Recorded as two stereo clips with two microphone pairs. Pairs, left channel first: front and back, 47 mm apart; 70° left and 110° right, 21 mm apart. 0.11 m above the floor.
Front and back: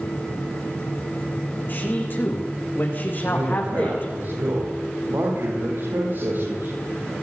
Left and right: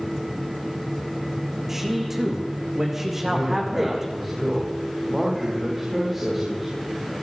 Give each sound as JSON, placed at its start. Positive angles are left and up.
{"t": 1.7, "sound": "a man speaking", "azimuth_deg": -40, "distance_m": 7.0}
{"t": 3.2, "sound": "a man speaking", "azimuth_deg": 165, "distance_m": 9.5}